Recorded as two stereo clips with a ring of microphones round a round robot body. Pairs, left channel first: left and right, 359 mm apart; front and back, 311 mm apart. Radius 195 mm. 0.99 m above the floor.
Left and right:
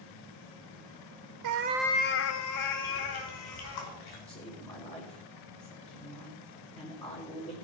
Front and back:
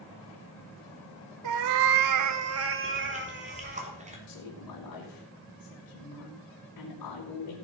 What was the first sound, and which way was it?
A cat meowing, 130° right.